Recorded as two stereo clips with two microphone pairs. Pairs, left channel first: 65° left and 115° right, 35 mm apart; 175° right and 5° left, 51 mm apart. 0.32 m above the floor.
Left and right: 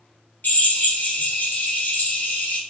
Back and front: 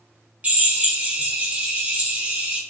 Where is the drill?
60° left, 1.3 m.